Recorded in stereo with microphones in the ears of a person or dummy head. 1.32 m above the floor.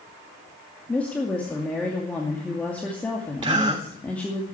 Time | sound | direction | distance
0.9 | a woman speaking | 5° left (ahead or behind) | 2.5 m
3.4 | a gasp | 25° right (ahead or behind) | 1.4 m